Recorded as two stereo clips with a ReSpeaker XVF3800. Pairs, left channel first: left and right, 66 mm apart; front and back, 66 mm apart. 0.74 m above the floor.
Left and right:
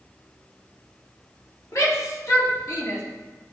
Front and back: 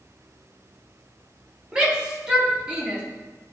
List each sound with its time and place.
1.7 s a shout: 105° left, 2 m